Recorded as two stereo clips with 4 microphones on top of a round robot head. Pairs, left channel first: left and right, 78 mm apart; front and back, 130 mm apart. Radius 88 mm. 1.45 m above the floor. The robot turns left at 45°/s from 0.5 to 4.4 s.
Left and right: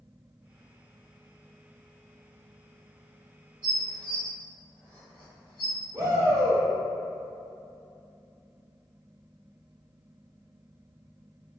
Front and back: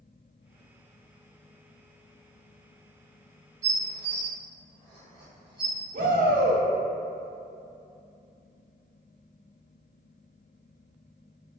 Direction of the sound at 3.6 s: 165° left.